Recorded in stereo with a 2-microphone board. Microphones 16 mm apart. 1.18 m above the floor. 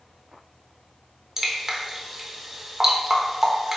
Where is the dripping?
25° right (ahead or behind), 0.6 m.